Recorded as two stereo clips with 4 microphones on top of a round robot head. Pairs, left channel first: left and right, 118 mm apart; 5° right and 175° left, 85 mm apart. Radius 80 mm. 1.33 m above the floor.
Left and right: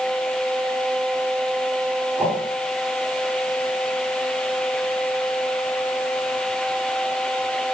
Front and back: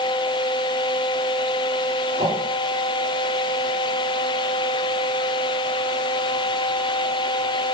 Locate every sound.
2.2 s a whoosh: 165° right, 3.5 m